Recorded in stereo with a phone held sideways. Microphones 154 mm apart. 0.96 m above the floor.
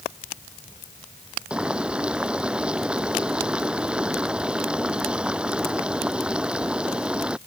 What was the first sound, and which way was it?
Boiling, 5° right (ahead or behind).